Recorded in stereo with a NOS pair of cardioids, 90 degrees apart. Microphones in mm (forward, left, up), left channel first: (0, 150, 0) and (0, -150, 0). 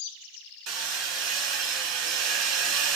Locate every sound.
0.7 s hammering: 55° right, 1.7 m